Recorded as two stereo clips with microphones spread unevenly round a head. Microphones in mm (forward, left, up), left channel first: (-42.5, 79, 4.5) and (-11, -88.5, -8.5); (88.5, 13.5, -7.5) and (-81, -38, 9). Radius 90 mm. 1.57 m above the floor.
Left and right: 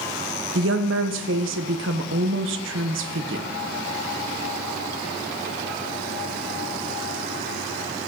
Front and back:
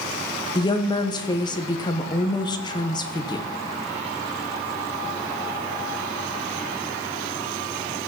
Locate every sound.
0.6 s a woman speaking: 50° right, 1.0 m